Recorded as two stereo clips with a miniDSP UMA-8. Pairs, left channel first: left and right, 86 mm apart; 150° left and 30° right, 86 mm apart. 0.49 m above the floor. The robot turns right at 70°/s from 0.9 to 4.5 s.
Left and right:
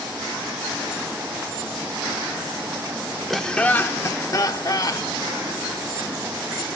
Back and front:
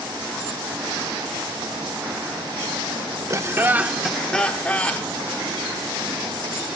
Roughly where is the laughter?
Ahead.